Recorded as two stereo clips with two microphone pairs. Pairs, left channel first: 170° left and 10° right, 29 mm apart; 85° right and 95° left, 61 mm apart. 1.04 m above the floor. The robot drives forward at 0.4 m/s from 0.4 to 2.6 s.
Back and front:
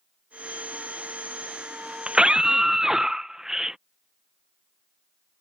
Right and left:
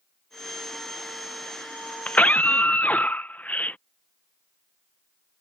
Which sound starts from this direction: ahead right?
A scream, at 2.1 s.